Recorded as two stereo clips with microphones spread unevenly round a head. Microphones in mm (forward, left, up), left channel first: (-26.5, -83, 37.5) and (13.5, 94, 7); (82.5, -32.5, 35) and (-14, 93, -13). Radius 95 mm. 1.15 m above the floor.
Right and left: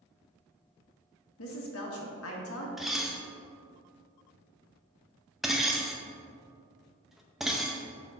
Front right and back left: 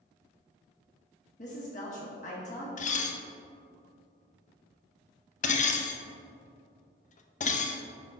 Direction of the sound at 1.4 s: 110° right.